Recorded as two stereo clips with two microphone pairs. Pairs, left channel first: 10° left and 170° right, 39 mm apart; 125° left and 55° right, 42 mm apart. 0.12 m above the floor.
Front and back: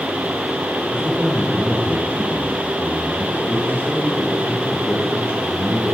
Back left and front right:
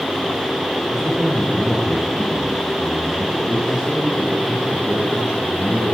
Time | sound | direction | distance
0.9 | a man speaking | 20° left | 4.5 m